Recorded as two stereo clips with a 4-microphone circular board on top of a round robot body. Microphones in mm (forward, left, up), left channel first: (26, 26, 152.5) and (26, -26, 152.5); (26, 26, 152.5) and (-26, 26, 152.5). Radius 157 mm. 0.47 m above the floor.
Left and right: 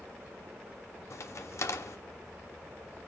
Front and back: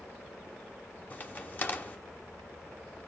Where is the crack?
60° left, 0.9 m.